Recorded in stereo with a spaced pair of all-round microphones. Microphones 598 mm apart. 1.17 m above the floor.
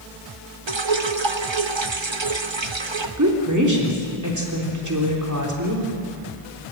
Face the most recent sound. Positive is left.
turn(degrees=-30)  # may be behind; listen again after turning